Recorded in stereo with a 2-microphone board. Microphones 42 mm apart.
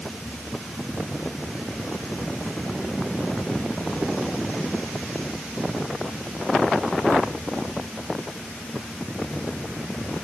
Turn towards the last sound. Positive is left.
No sound to turn to.